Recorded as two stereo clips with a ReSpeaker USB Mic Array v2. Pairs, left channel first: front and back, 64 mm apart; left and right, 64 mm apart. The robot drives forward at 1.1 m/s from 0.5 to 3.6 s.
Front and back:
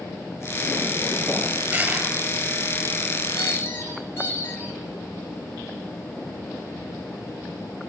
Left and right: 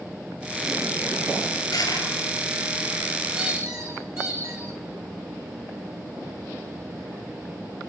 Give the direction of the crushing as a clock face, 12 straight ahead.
8 o'clock.